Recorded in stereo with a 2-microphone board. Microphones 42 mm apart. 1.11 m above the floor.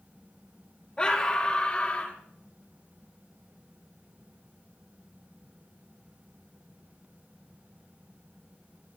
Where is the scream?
20° left (ahead or behind), 2.5 m; by 2.2 s 30° left (ahead or behind), 3 m.